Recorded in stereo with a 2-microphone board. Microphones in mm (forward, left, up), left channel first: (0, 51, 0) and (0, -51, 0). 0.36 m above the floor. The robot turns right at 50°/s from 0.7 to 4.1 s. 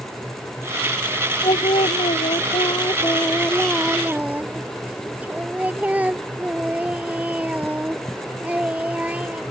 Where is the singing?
60° left; by 9.4 s 165° right.